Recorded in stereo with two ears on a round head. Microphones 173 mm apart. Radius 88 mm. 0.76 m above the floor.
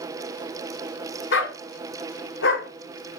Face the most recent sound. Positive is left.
turn(degrees=75)  # may be behind; listen again after turning